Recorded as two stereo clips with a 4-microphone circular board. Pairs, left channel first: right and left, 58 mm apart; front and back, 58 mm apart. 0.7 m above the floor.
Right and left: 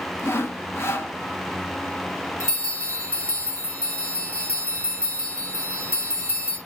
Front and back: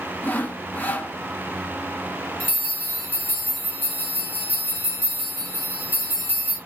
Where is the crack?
No crack in this recording.